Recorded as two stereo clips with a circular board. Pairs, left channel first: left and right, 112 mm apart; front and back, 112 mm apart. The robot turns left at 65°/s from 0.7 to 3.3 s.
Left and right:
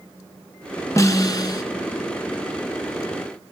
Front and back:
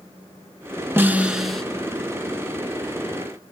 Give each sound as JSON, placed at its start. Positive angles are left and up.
{"t": 1.0, "sound": "a snare drum", "azimuth_deg": 125, "distance_m": 1.0}